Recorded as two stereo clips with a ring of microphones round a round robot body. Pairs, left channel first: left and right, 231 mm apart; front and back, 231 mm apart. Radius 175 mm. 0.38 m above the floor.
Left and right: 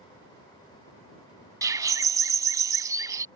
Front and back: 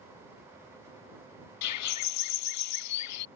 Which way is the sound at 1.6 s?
15° right.